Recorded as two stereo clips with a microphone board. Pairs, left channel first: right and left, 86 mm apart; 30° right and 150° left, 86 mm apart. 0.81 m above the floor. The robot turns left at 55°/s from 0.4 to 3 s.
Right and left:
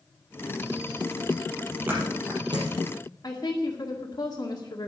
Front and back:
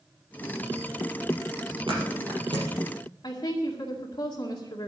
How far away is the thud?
About 5 m.